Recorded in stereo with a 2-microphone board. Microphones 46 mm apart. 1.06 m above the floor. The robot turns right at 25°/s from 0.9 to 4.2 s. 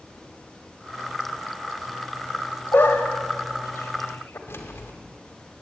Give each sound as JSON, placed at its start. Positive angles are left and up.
{"t": 2.7, "sound": "a dog barking", "side_deg": 55, "distance_m": 1.8}
{"t": 4.5, "sound": "keys jangling", "side_deg": 65, "distance_m": 2.5}